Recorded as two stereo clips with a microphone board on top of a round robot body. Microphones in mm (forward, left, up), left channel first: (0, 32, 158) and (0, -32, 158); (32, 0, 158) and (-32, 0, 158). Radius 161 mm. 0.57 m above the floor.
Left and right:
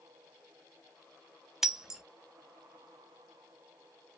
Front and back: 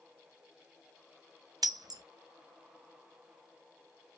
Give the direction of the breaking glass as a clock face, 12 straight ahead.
6 o'clock.